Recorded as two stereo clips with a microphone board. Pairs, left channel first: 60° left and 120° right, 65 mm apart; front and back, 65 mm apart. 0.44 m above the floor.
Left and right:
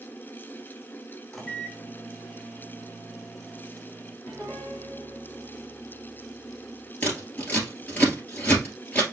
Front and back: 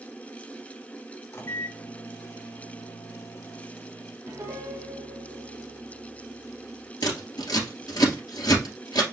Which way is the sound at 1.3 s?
25° right.